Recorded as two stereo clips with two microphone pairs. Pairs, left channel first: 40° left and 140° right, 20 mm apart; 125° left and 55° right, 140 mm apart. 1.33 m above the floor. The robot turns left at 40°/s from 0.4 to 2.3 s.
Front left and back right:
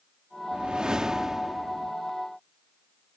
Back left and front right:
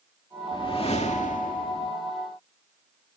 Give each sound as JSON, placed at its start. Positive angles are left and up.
{"t": 0.5, "sound": "a whoosh", "azimuth_deg": -175}